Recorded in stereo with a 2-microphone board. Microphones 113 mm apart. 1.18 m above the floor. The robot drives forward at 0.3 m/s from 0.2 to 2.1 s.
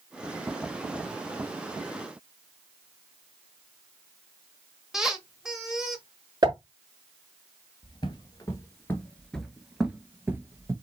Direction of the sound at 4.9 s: 5° right (ahead or behind).